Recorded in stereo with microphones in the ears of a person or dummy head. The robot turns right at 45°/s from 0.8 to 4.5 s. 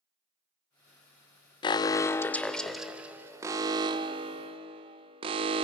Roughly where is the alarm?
Behind left.